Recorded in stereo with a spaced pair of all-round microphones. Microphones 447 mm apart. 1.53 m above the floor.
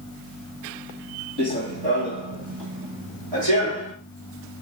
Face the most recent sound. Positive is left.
turn(degrees=-70)  # may be behind; listen again after turning